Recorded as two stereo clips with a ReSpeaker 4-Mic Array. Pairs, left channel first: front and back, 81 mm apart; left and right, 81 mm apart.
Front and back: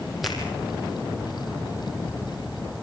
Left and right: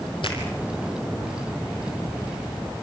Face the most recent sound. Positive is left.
turn(degrees=90)